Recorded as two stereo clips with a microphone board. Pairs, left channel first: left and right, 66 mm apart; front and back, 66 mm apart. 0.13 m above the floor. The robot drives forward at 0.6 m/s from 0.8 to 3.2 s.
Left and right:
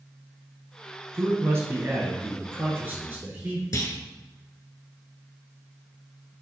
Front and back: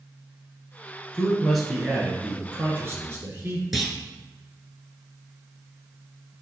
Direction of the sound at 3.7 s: 90° left.